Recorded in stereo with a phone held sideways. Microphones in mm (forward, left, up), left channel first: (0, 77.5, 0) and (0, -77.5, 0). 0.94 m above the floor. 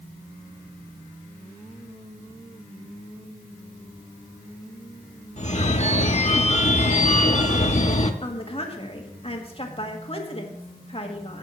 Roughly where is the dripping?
I don't hear dripping.